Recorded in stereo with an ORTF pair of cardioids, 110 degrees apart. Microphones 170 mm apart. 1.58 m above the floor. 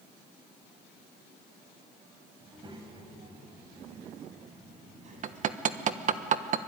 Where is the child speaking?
25° right, 5.5 m; by 6.2 s 45° right, 7.5 m.